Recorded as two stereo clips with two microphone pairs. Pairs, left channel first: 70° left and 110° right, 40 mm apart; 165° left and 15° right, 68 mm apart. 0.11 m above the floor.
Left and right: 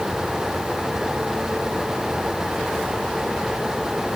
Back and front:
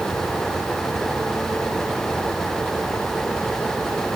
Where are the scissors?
I don't hear scissors.